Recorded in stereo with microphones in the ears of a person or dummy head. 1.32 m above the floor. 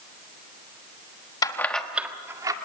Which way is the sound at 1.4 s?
25° left (ahead or behind).